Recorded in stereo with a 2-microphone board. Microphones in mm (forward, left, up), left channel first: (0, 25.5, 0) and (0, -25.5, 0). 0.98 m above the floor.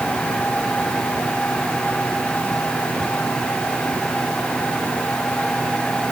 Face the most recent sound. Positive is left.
No sound to turn to.